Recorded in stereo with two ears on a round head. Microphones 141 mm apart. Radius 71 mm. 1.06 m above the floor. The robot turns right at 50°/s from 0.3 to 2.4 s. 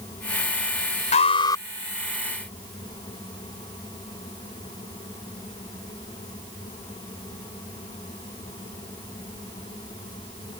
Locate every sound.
1.1 s an alarm: 50° left (ahead or behind); by 1.6 s 20° left (ahead or behind)